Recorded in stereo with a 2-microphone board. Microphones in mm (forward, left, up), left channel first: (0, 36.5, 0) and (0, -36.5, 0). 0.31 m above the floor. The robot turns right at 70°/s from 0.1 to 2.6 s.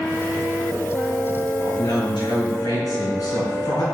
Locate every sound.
1.6 s a man speaking: 50° left, 4 m; by 3.8 s 120° left, 4 m